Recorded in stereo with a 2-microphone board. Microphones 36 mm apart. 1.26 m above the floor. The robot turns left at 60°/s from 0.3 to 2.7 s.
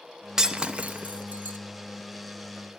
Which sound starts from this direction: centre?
Breaking glass, at 0.4 s.